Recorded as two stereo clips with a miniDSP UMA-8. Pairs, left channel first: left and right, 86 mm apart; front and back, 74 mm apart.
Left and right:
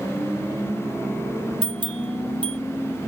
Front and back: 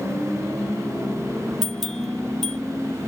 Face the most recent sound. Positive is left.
turn(degrees=-85)